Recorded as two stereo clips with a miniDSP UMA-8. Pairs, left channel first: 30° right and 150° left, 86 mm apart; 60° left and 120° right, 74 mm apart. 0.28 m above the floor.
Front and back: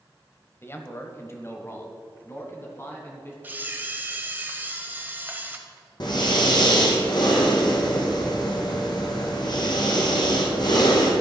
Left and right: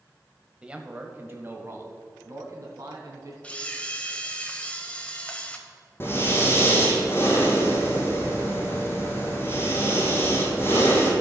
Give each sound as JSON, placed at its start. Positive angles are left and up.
{"t": 0.6, "sound": "a man speaking", "azimuth_deg": -55, "distance_m": 1.0}
{"t": 3.4, "sound": "a camera shutter", "azimuth_deg": 110, "distance_m": 1.0}
{"t": 6.0, "sound": "breathing", "azimuth_deg": 5, "distance_m": 2.0}